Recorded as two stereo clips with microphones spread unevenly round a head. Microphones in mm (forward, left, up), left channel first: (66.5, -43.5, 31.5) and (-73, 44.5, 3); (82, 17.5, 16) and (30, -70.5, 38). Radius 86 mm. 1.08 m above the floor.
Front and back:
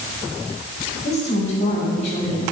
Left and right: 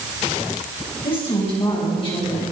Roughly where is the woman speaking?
Ahead.